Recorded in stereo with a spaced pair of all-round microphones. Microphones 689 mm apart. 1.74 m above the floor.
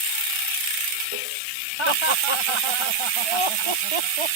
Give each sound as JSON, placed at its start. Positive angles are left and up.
{"t": 1.8, "sound": "laughter", "side_deg": -45}